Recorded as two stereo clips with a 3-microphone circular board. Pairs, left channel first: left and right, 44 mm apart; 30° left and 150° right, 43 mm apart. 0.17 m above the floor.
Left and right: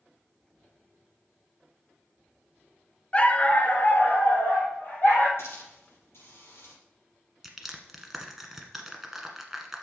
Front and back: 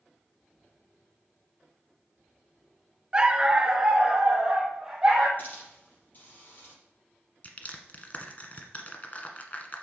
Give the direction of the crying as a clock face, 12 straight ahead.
I don't hear crying.